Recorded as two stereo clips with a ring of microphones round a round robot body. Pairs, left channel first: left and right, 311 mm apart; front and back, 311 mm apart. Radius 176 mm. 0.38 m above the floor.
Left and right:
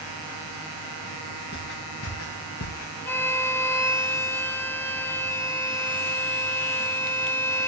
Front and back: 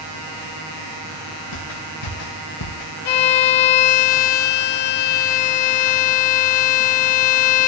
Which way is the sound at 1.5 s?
25° left.